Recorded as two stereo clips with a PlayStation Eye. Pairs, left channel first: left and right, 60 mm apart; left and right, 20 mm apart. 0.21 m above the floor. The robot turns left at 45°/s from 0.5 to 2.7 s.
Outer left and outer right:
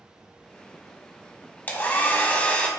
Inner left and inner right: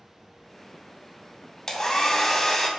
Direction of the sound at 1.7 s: 80° left.